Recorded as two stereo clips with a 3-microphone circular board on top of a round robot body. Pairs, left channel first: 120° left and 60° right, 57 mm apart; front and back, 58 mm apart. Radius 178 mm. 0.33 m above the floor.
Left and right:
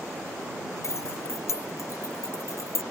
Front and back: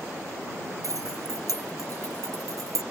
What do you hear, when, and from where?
0.8 s keys jangling: 155° left